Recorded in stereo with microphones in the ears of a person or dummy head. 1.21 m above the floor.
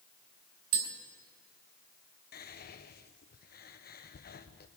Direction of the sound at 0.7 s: 50° right (ahead or behind).